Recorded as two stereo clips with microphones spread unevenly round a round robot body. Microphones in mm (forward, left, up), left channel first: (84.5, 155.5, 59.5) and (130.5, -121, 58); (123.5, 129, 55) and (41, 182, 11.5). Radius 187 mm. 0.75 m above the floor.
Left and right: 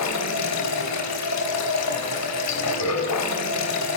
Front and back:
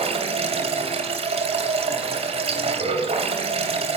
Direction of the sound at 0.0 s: 140° left.